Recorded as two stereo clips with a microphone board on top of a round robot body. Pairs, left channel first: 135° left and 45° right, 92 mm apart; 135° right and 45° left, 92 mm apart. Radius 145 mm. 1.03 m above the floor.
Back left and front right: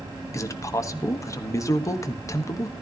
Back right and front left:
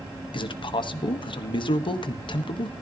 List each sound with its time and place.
0.3 s a man speaking: 170° right, 1.3 m